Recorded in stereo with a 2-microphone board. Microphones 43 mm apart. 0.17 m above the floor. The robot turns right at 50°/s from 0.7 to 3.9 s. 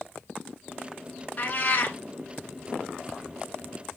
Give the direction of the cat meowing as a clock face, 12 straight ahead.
10 o'clock.